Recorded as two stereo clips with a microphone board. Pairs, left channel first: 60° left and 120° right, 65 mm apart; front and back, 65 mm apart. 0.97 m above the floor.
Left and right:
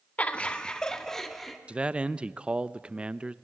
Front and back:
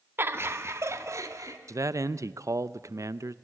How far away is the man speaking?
About 0.6 m.